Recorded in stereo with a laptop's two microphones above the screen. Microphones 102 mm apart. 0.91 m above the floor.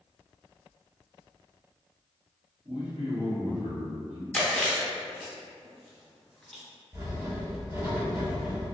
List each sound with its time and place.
2.6 s a man speaking: 65° right (ahead or behind), 1.1 m
4.3 s chewing: 10° left (ahead or behind), 0.5 m
6.9 s writing: 25° right (ahead or behind), 2.0 m